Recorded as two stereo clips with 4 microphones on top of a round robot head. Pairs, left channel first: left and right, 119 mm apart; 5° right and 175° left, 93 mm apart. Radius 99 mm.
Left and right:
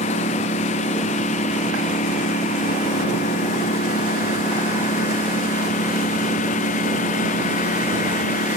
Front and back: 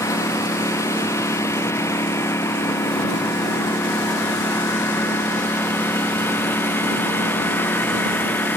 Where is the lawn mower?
55° left; by 8.6 s 65° left.